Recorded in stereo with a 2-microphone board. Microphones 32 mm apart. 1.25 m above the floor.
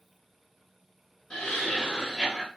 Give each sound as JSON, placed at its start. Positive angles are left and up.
{"t": 1.3, "sound": "laughter", "side_deg": 25, "distance_m": 1.2}